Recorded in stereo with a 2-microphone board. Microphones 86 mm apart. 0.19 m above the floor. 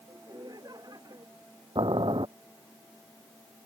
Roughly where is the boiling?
Right.